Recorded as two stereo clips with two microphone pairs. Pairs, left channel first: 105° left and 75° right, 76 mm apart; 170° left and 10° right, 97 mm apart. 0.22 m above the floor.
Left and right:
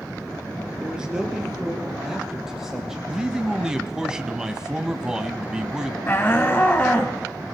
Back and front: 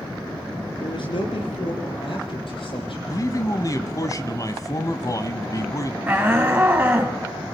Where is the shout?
55° left, 1.9 m.